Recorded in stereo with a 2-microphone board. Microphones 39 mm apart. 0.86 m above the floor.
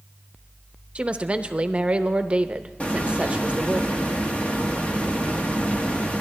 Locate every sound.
0.9 s a woman speaking: 30° right (ahead or behind), 0.6 m
2.8 s a hiss: 35° left (ahead or behind), 1.3 m